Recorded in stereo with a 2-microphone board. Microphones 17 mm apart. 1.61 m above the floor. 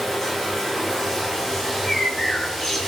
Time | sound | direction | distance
0.0 | running water | 30° left (ahead or behind) | 8 m
1.6 | a bird | 35° left (ahead or behind) | 2.5 m